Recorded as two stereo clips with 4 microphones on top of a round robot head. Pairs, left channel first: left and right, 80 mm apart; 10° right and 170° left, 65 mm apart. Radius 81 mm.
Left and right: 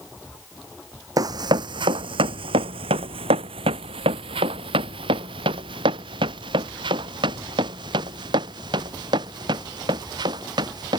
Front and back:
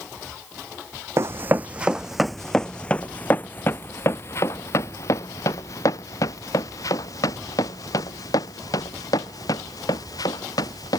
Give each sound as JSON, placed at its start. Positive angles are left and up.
{"t": 1.2, "sound": "running footsteps", "azimuth_deg": -130}